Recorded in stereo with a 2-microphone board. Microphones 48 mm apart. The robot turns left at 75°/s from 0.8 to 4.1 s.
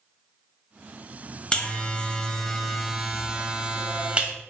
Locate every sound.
1.5 s a buzzer: 25° left (ahead or behind), 1.4 m; by 4.3 s 25° right (ahead or behind), 1.4 m